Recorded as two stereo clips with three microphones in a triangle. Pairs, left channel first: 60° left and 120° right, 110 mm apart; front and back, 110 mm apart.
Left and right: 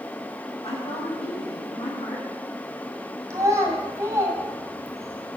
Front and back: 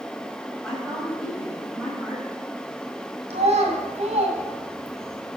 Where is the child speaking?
Straight behind, 2 m.